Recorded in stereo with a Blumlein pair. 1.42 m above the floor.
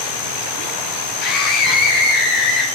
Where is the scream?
40° left, 2.5 m; by 2.6 s 45° left, 4 m.